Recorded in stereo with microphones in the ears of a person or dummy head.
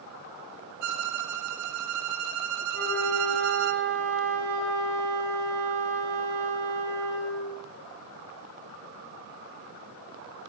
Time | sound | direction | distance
0.8 | a violin | 70° right (ahead or behind) | 0.7 m
2.7 | a flute | 65° right (ahead or behind) | 3 m